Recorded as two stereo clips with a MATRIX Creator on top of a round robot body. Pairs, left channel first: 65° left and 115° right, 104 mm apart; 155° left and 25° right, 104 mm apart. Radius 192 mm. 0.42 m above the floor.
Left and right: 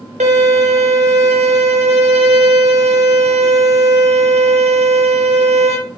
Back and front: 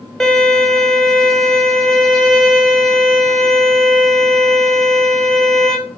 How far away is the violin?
About 1.0 m.